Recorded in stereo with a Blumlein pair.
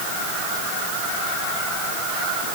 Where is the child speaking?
No child speaking in this recording.